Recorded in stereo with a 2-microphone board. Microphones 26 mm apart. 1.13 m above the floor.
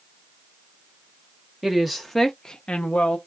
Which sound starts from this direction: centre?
A woman speaking, at 1.6 s.